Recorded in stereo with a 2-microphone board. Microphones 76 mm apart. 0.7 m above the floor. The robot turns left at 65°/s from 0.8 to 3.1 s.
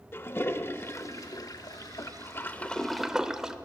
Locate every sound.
0.1 s a toilet flushing: 140° left, 0.5 m; by 3.6 s 10° right, 0.5 m